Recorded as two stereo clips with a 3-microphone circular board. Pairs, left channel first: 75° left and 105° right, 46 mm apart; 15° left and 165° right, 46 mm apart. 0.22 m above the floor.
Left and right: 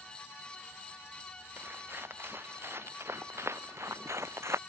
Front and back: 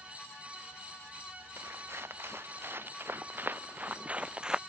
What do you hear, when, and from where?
1.6 s footsteps: 140° right; by 4.6 s 90° right